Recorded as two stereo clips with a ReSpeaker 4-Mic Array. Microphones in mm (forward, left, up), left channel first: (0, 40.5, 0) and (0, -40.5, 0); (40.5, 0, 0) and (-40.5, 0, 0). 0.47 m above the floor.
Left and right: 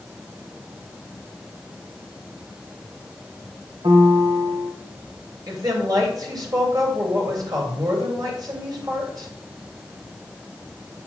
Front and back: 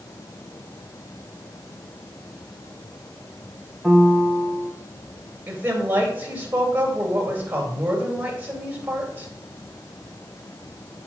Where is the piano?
85° right, 1.7 m.